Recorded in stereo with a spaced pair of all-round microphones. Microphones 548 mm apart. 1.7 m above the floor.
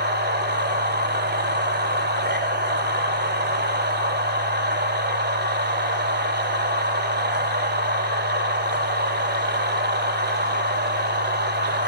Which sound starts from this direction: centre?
A machine running, at 0.0 s.